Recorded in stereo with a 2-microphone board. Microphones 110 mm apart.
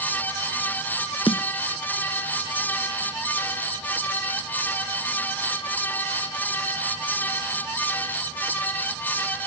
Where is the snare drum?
55° left (ahead or behind).